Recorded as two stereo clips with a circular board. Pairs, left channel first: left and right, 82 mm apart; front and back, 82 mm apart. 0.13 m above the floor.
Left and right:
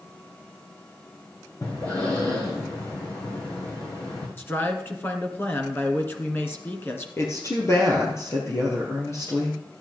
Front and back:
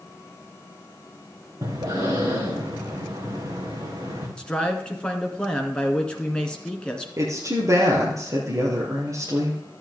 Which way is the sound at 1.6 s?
140° left.